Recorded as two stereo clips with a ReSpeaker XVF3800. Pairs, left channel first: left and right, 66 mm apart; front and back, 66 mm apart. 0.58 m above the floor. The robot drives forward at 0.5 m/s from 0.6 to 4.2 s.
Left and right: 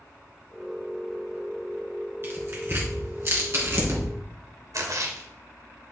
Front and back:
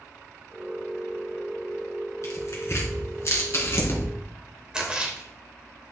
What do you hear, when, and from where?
2.2 s tearing paper: 40° right, 4 m; by 4.1 s 50° right, 3 m
4.7 s a splash: 105° right, 2.5 m